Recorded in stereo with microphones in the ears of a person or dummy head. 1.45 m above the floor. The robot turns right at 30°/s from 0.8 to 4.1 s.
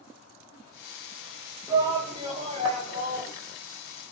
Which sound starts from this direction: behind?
A shout, at 1.7 s.